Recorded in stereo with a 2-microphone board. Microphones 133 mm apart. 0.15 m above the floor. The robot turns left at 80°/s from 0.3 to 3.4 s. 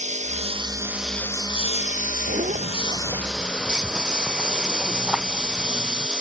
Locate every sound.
0.0 s a lawn mower: 120° right; by 6.2 s 5° right
2.3 s a zipper: 85° right; by 6.1 s 5° right (ahead or behind)